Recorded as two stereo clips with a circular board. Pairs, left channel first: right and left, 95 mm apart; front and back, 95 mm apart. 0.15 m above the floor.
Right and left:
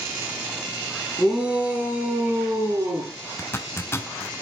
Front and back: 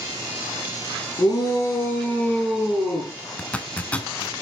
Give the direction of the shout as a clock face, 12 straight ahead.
12 o'clock.